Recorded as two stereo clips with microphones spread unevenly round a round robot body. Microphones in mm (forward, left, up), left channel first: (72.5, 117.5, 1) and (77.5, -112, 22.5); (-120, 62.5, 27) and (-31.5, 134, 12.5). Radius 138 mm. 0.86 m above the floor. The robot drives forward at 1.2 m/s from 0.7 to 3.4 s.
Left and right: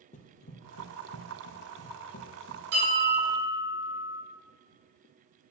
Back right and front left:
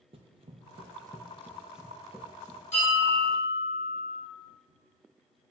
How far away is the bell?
About 4 m.